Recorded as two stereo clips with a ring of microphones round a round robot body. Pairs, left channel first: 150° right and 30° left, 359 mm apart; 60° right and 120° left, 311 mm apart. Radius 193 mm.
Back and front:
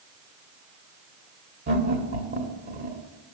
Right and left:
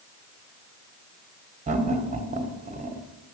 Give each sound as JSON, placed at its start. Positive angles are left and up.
{"t": 1.7, "sound": "laughter", "azimuth_deg": 70, "distance_m": 1.3}